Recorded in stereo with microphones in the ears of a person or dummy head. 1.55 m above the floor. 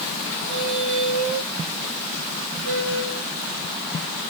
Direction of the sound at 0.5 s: 50° right (ahead or behind).